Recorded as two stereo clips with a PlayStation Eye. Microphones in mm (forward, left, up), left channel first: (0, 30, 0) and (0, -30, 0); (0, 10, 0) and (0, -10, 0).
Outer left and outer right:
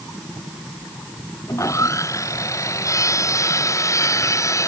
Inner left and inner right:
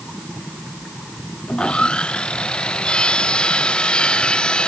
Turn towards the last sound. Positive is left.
turn(degrees=50)  # may be behind; listen again after turning